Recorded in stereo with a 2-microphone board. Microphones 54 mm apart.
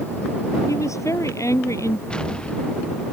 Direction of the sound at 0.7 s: 70° left (ahead or behind).